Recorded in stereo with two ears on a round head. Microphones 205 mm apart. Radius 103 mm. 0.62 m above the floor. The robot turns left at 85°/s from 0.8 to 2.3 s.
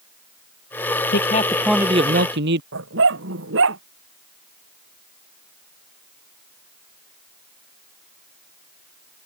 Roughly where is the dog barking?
Right.